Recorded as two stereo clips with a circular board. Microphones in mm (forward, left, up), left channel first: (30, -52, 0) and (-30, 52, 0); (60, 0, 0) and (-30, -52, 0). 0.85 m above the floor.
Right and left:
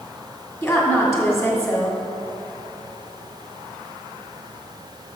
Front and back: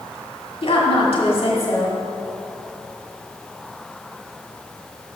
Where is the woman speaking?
10° left, 1.9 m.